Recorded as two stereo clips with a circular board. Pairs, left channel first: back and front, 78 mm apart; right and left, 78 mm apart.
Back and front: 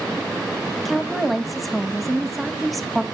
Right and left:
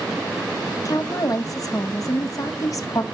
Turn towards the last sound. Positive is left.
turn(degrees=-90)